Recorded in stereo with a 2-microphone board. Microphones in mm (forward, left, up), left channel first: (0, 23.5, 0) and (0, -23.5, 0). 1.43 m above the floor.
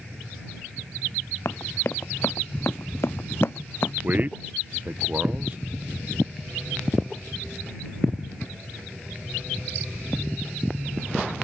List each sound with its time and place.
1.4 s running footsteps: 65° left (ahead or behind); by 3.9 s 55° left (ahead or behind)
4.0 s a man speaking: 40° right (ahead or behind)